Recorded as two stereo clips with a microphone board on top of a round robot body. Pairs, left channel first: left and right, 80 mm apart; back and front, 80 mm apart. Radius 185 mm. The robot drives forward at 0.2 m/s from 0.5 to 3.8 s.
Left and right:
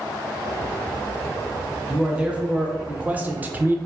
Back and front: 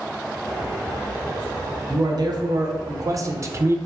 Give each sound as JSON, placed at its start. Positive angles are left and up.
{"t": 1.9, "sound": "a man speaking", "azimuth_deg": -15, "distance_m": 0.7}